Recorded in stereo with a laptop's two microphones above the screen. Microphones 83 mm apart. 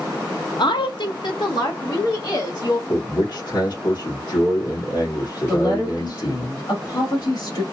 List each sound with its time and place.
0.6 s a woman speaking: 65° left (ahead or behind), 0.6 m; by 2.8 s 55° left (ahead or behind), 1.9 m
2.9 s a man speaking: 70° left (ahead or behind), 1.8 m
5.5 s a woman speaking: 60° left (ahead or behind), 1.7 m